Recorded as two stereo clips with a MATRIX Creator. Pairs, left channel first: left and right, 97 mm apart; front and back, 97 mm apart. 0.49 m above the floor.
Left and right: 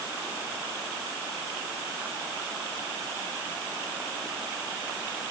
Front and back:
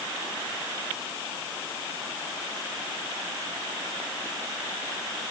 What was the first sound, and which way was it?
Only background noise.